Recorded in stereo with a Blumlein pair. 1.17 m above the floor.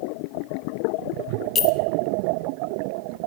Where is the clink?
30° left, 0.8 m.